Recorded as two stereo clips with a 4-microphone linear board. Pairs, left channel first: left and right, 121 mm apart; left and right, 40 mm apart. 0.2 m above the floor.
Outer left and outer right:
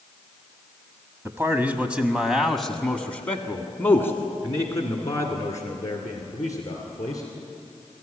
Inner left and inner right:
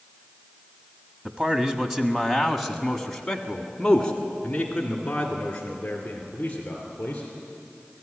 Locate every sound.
1.2 s a man speaking: 20° right (ahead or behind), 1.2 m; by 7.2 s 30° left (ahead or behind), 3.5 m